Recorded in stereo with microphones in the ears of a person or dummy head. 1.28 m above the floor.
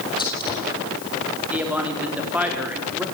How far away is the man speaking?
About 3.5 m.